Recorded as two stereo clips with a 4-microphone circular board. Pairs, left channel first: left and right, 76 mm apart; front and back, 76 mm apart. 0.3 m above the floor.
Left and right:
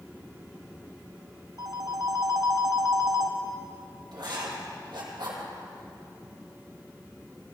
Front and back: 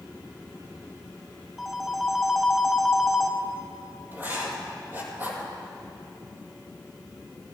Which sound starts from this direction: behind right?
Writing, at 4.1 s.